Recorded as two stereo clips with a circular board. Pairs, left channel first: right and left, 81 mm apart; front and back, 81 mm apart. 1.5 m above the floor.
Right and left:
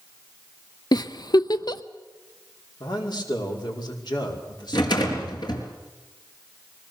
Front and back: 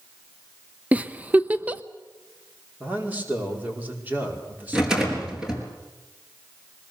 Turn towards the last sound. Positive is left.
turn(degrees=-100)